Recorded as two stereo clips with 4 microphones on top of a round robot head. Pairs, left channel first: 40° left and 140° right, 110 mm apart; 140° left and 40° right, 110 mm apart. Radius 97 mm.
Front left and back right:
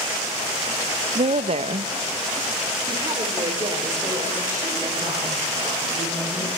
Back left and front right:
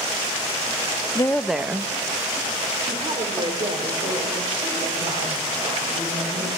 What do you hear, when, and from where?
1.1 s a woman speaking: 165° right, 0.7 m; by 6.5 s 80° right, 7 m